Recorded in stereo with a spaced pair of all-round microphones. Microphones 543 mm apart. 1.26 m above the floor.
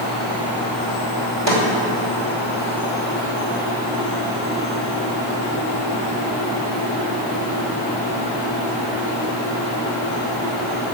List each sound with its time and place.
1.5 s a snare drum: 50° right (ahead or behind), 2.5 m